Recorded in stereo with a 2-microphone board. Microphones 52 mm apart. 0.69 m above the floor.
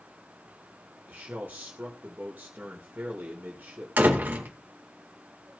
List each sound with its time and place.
1.1 s a man speaking: 40° right (ahead or behind), 2 m
4.0 s a door slam: 35° right (ahead or behind), 1.9 m